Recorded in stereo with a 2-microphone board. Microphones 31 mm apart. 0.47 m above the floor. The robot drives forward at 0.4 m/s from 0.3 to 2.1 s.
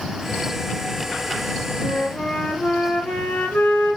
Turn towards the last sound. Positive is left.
turn(degrees=75)  # may be behind; listen again after turning